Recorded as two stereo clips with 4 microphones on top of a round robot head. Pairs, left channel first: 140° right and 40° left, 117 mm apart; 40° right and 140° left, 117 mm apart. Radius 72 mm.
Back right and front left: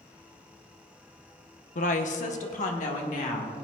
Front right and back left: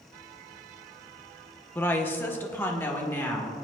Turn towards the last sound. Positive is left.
turn(degrees=-115)